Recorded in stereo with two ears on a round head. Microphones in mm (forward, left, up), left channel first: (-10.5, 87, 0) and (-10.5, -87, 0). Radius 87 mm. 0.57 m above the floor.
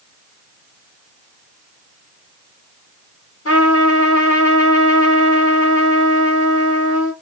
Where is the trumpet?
85° left, 2.5 m.